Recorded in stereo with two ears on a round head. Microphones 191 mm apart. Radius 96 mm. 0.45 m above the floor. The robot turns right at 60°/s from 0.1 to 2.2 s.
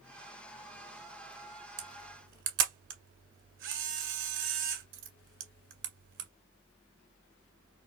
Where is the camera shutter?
40° right (ahead or behind), 1.6 m; by 6.3 s 65° right (ahead or behind), 1.6 m.